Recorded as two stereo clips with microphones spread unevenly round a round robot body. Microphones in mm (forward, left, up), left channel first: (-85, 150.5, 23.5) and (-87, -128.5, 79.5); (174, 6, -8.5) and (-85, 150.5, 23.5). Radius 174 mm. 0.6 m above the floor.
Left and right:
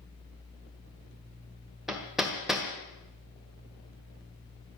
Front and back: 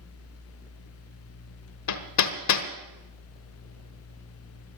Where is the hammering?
Straight ahead, 1.5 m.